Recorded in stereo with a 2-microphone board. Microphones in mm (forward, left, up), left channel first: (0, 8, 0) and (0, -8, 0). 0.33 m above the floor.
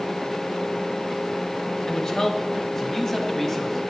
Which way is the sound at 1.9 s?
35° left (ahead or behind).